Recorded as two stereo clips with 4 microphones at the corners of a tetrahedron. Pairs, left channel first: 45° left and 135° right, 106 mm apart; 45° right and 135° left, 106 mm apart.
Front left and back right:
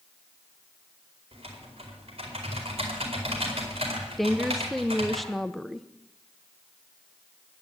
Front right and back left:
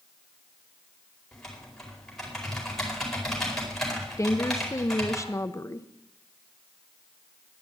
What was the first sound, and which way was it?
Typing on a keyboard, 130° right.